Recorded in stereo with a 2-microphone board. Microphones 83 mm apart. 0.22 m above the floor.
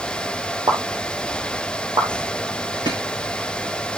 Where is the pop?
60° right (ahead or behind), 2.5 m.